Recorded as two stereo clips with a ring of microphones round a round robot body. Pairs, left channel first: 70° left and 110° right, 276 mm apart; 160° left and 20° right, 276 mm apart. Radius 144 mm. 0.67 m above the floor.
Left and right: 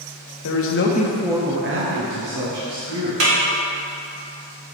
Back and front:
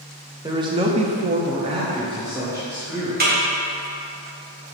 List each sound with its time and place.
0.4 s a man speaking: 55° left, 1.3 m; by 3.1 s 105° right, 3 m
3.2 s a snare drum: 80° right, 2 m